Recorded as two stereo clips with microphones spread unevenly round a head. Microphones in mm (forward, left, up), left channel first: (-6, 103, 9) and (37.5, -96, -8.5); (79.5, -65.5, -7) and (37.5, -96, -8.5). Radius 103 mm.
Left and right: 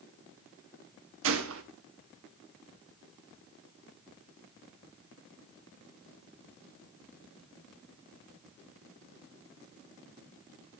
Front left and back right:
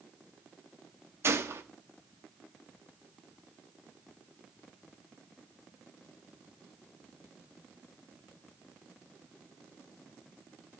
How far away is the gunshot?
About 1.1 m.